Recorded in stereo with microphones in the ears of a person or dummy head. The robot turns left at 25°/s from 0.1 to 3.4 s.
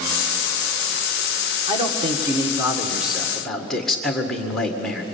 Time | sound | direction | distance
1.7 | a man speaking | 140° right | 1.8 m